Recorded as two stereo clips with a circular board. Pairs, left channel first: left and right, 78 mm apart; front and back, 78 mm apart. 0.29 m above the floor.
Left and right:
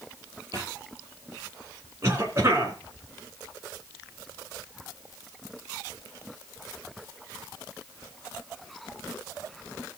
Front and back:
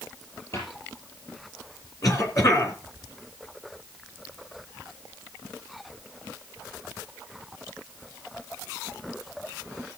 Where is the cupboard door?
50° right, 6 m.